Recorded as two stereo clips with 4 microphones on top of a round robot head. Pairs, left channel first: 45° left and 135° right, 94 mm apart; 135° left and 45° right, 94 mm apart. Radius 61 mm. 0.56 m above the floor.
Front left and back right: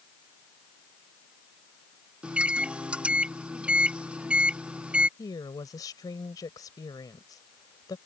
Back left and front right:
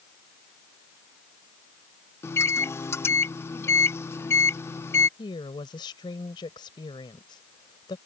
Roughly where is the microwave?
Behind.